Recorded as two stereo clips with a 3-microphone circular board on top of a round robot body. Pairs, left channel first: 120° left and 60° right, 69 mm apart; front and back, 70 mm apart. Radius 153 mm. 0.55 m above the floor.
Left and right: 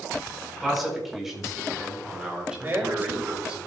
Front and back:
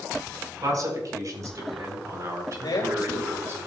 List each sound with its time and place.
0.6 s a man speaking: 145° right, 5 m; by 3.6 s 130° right, 4 m
2.6 s a man speaking: straight ahead, 3.5 m